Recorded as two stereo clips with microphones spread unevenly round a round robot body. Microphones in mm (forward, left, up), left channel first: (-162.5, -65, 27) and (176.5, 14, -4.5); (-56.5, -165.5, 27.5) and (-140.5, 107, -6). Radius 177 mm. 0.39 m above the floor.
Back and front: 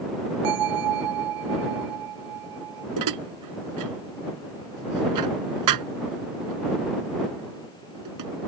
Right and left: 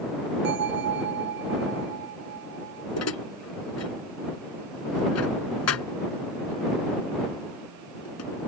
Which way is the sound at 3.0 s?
20° right.